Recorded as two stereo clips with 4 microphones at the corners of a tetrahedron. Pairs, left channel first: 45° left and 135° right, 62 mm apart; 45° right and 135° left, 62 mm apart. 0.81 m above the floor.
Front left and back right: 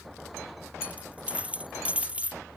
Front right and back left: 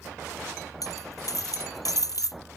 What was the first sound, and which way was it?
A dropped coin, 65° right.